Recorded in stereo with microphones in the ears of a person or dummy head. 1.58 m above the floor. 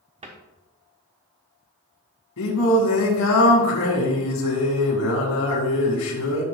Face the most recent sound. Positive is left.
turn(degrees=85)